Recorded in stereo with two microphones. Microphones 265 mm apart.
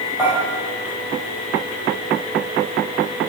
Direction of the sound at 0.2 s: 10° right (ahead or behind).